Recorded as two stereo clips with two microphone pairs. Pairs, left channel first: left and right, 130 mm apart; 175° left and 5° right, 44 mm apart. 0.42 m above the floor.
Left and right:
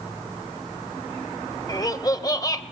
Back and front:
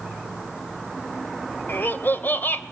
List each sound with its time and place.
1.7 s laughter: 145° left, 1.4 m